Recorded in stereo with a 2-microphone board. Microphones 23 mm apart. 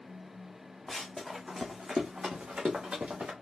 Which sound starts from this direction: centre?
Running footsteps, at 0.9 s.